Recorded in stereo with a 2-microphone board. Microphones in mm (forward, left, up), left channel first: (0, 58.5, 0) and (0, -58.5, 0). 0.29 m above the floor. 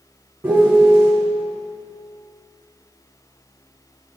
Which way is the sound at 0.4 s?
15° right (ahead or behind).